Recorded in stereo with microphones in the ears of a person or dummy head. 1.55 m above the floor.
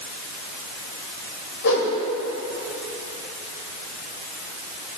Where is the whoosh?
65° left (ahead or behind), 2.5 m.